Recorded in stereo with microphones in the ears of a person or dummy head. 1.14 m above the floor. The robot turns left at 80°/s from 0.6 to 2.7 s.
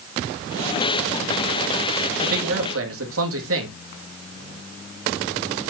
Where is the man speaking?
45° right, 2 m; by 3.8 s 85° right, 2 m.